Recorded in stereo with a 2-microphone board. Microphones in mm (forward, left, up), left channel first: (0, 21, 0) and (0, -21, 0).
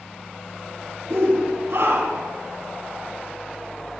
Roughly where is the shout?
Right.